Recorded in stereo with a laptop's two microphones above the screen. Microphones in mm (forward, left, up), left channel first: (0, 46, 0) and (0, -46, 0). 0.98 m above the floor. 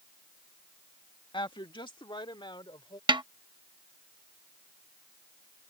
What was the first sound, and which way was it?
A woman speaking, 55° left (ahead or behind).